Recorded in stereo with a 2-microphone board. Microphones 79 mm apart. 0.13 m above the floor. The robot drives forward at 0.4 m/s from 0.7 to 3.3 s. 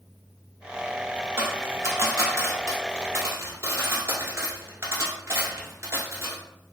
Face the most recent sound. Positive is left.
turn(degrees=-35)  # may be behind; listen again after turning